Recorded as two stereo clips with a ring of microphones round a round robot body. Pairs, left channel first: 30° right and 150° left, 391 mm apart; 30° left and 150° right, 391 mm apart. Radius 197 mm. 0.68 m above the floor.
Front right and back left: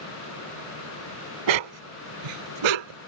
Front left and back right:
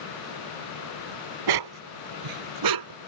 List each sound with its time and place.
1.5 s a dog barking: 175° left; by 3.0 s 170° left